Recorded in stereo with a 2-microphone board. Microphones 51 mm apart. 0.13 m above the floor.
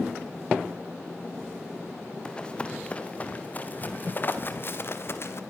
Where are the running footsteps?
20° left (ahead or behind), 3 m; by 5.4 s 55° left (ahead or behind), 2.5 m.